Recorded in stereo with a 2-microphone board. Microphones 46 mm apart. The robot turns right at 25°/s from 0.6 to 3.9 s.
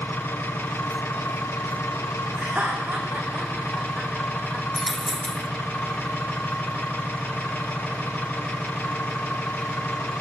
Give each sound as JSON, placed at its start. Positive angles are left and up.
{"t": 0.0, "sound": "an engine running", "azimuth_deg": 55, "distance_m": 7.5}
{"t": 2.4, "sound": "laughter", "side_deg": -35, "distance_m": 10.0}
{"t": 4.8, "sound": "a dropped coin", "side_deg": 0, "distance_m": 0.8}